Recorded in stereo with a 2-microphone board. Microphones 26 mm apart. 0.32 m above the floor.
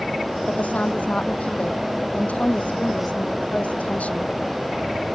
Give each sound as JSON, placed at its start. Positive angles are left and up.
{"t": 0.5, "sound": "a woman speaking", "side_deg": 65}